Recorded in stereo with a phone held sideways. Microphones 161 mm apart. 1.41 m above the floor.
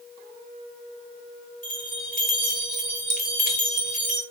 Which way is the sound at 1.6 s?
60° left (ahead or behind).